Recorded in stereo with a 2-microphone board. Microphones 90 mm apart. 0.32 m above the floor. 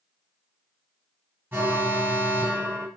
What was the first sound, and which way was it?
An alarm, 20° right (ahead or behind).